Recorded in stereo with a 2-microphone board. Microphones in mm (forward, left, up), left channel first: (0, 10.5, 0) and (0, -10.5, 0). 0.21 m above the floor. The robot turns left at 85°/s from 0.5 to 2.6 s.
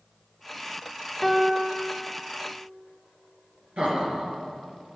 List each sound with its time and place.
1.2 s a piano: 15° left (ahead or behind), 1.1 m; by 1.9 s 5° right (ahead or behind), 1.1 m
3.8 s laughter: 65° right (ahead or behind), 4 m